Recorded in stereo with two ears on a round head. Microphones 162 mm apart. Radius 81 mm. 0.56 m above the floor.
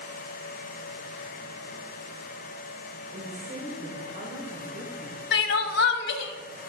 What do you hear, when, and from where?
3.1 s a woman speaking: 45° right (ahead or behind), 2.0 m
5.3 s crying: 65° left (ahead or behind), 0.8 m